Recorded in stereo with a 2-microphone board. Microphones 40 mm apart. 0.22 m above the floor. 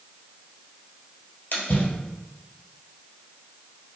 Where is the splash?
55° left (ahead or behind), 1.5 m.